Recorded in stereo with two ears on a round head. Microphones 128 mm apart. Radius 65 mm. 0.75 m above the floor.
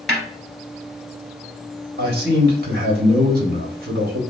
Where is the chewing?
I don't hear chewing.